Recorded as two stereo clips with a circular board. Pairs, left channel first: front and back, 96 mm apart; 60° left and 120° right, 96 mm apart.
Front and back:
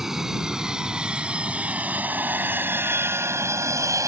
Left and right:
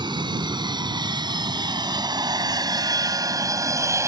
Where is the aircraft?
95° right; by 4.1 s 155° right.